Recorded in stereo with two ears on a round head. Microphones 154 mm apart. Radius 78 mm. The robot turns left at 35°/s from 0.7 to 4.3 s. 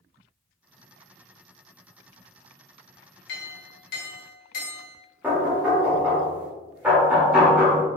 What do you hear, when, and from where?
3.3 s a clink: 90° left, 1.2 m; by 5.0 s 55° left, 1.2 m
5.2 s knocking: 10° right (ahead or behind), 1.1 m